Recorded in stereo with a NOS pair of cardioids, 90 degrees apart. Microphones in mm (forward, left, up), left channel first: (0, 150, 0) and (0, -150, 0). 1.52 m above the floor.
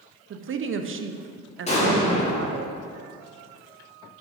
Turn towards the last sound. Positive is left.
turn(degrees=20)